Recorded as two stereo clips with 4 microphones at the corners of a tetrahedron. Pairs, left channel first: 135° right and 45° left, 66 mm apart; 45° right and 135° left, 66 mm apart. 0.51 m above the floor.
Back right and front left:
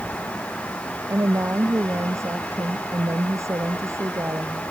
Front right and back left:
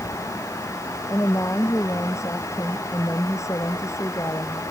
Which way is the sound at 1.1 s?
Straight ahead.